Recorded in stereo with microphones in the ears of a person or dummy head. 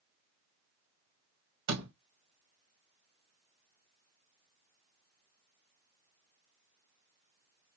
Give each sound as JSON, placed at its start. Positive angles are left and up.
{"t": 1.7, "sound": "a door slam", "side_deg": -60, "distance_m": 2.0}